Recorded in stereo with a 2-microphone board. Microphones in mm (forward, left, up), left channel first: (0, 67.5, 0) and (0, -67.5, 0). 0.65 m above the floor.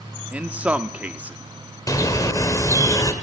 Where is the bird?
25° left (ahead or behind), 2.0 m.